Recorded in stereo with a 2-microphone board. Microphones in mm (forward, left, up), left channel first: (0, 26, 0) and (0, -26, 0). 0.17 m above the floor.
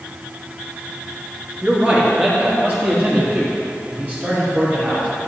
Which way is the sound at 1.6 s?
25° right (ahead or behind).